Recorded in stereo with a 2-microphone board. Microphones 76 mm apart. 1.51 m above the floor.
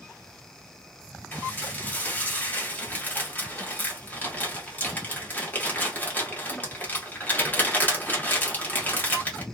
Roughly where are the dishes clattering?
Left.